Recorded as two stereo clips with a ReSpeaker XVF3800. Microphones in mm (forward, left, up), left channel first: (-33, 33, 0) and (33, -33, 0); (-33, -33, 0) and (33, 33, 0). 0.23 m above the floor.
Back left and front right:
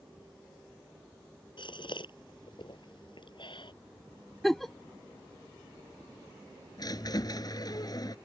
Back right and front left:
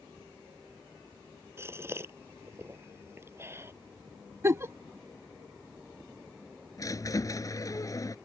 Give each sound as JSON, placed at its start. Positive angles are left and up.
{"t": 1.6, "sound": "a gasp", "azimuth_deg": 105}
{"t": 4.4, "sound": "a giggle", "azimuth_deg": 50}
{"t": 6.8, "sound": "a squeak", "azimuth_deg": 175}